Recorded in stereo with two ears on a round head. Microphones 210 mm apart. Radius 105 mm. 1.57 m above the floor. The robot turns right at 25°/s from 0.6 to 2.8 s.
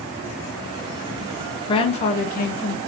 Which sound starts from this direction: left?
A woman speaking, at 1.7 s.